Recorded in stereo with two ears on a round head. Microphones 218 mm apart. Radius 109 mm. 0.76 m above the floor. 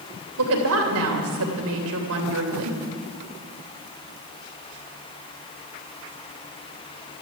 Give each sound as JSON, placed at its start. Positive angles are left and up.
{"t": 0.4, "sound": "a woman speaking", "side_deg": -65, "distance_m": 3.0}